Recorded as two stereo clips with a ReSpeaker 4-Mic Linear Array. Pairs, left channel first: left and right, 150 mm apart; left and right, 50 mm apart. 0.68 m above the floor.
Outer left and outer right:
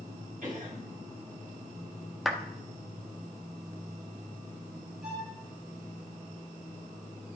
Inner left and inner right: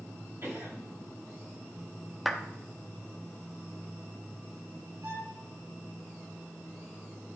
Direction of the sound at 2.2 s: Centre (ahead or behind).